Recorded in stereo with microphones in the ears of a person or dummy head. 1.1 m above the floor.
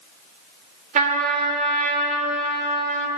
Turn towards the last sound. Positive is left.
turn(degrees=-50)  # may be behind; listen again after turning